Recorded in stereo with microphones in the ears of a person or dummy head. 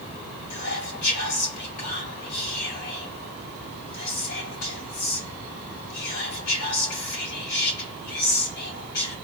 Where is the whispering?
80° left, 2.5 m.